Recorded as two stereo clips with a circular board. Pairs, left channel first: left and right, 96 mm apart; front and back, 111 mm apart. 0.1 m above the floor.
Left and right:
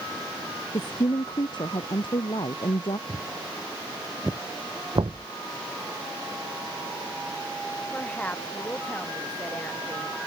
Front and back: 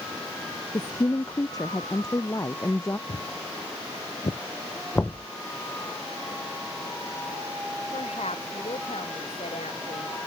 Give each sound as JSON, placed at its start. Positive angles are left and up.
{"t": 0.7, "sound": "a woman speaking", "azimuth_deg": 50}
{"t": 3.1, "sound": "footsteps", "azimuth_deg": 0}
{"t": 5.0, "sound": "knocking", "azimuth_deg": -65}
{"t": 7.9, "sound": "a woman speaking", "azimuth_deg": 15}